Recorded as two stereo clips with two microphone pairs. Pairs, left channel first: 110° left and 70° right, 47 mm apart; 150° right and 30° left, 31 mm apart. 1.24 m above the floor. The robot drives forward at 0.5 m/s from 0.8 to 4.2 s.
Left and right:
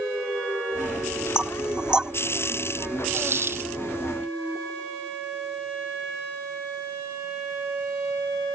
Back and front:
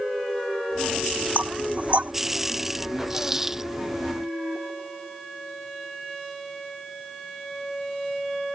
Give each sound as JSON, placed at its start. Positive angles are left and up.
{"t": 1.4, "sound": "knocking", "azimuth_deg": 0}
{"t": 3.1, "sound": "a dropped coin", "azimuth_deg": -40}